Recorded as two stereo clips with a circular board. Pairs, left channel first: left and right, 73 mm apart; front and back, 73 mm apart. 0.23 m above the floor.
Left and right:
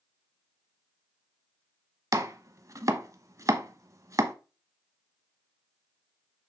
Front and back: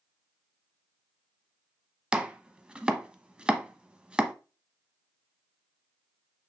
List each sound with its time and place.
2.1 s chopping: 110° right, 0.8 m